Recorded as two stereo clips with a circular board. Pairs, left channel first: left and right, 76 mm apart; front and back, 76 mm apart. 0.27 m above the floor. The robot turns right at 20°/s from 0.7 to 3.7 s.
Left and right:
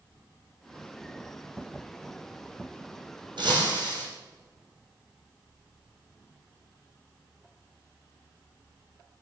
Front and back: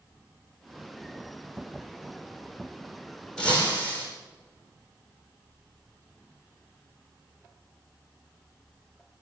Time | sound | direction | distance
3.4 | breaking glass | 75° right | 5.5 m